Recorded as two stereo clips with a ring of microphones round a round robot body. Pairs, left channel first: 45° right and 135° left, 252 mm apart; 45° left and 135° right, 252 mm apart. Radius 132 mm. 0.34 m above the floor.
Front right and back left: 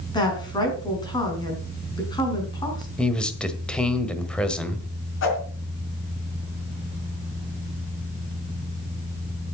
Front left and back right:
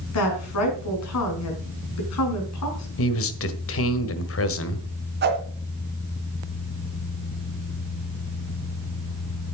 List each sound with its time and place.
0.1 s a woman speaking: 30° left, 4.5 m
3.0 s a man speaking: 40° left, 1.6 m
5.2 s a whoosh: 85° right, 3 m